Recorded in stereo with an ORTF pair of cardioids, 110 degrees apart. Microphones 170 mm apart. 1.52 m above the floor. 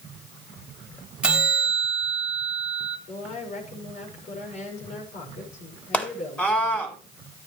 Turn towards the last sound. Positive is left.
turn(degrees=10)